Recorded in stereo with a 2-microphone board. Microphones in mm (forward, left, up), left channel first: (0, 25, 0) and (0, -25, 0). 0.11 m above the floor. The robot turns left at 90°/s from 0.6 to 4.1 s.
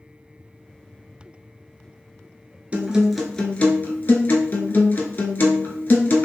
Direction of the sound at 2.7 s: 140° right.